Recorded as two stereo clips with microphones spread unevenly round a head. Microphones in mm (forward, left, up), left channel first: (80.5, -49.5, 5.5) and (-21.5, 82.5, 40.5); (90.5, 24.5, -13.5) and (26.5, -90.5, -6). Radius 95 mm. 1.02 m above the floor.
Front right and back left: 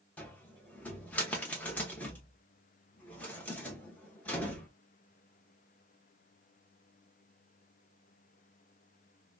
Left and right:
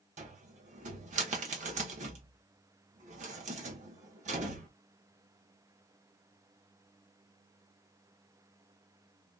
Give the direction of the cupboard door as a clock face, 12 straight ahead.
5 o'clock.